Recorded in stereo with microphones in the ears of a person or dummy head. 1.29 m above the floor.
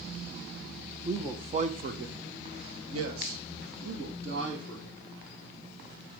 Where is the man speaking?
10° right (ahead or behind), 1.1 m; by 5.0 s 65° right (ahead or behind), 3 m.